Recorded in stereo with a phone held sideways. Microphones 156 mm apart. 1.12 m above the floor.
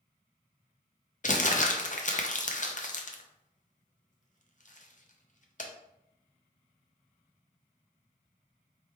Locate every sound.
1.2 s crumpling: 55° left (ahead or behind), 0.6 m